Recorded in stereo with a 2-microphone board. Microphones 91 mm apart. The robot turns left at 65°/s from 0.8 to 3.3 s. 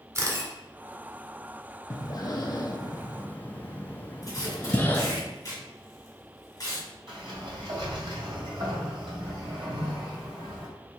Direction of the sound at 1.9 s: 35° left (ahead or behind).